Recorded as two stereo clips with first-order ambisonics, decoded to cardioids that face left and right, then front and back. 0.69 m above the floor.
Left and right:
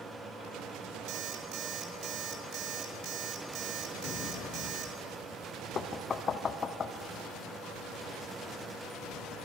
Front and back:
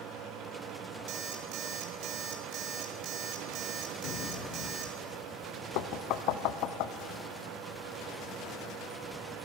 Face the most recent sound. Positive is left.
turn(degrees=25)